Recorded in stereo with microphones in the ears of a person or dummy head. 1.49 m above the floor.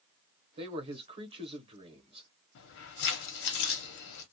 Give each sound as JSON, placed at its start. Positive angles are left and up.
{"t": 0.6, "sound": "a man speaking", "side_deg": -30, "distance_m": 0.9}
{"t": 2.5, "sound": "keys jangling", "side_deg": 60, "distance_m": 0.9}